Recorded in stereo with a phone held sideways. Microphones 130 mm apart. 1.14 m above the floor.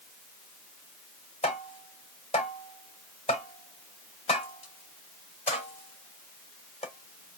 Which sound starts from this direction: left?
Tapping, at 1.4 s.